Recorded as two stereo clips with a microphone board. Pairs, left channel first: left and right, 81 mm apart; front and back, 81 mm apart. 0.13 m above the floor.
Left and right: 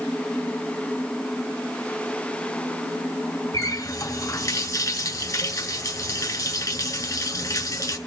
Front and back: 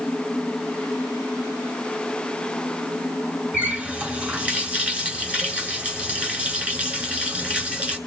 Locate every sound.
3.5 s a running tap: 110° left, 1.3 m